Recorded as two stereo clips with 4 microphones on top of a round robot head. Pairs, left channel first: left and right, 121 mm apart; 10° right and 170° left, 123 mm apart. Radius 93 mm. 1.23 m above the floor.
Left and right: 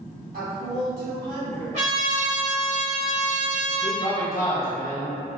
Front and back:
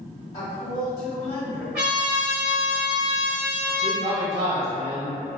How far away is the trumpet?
About 1.1 m.